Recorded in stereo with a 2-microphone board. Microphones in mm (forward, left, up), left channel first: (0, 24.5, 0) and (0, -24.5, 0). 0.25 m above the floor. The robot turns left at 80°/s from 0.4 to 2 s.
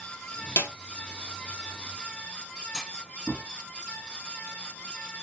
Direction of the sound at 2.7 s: Centre (ahead or behind).